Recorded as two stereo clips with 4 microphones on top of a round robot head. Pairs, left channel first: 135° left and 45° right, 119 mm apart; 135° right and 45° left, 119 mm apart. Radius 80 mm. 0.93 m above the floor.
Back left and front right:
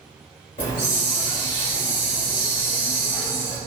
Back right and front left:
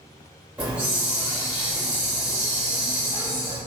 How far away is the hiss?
About 0.9 m.